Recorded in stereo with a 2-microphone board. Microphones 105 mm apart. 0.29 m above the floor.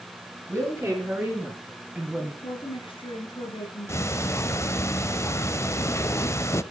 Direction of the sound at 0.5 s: 25° right (ahead or behind).